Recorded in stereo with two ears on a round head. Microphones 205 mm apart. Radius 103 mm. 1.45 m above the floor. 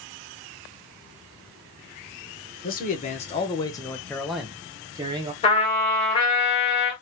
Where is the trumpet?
25° left (ahead or behind), 2 m.